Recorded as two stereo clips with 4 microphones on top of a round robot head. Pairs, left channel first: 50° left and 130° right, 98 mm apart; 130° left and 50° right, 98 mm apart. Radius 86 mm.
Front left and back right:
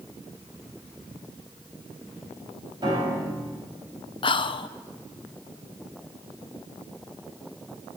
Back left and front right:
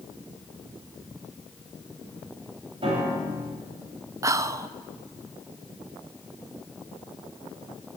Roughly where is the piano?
Right.